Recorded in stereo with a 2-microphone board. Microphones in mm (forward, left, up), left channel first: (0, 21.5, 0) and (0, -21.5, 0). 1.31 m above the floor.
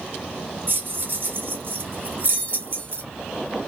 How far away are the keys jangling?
About 0.8 m.